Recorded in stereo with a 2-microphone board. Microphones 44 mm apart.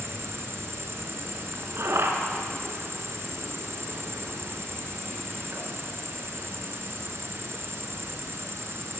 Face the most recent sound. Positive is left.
turn(degrees=-70)  # may be behind; listen again after turning